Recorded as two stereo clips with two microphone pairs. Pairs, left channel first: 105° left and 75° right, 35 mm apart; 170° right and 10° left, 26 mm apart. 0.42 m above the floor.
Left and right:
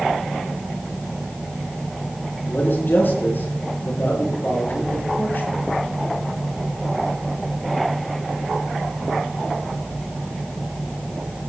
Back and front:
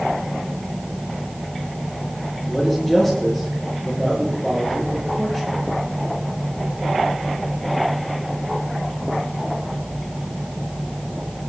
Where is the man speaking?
105° left, 6.5 m.